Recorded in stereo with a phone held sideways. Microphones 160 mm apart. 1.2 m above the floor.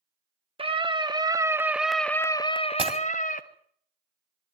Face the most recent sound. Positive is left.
turn(degrees=-35)  # may be behind; listen again after turning